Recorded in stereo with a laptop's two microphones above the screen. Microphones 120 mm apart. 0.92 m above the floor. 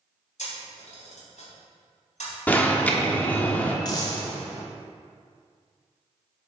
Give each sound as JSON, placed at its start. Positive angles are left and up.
{"t": 0.4, "sound": "a camera shutter", "side_deg": 85, "distance_m": 3.0}
{"t": 2.5, "sound": "an alarm", "side_deg": 15, "distance_m": 1.0}
{"t": 3.9, "sound": "a dropped coin", "side_deg": 35, "distance_m": 1.3}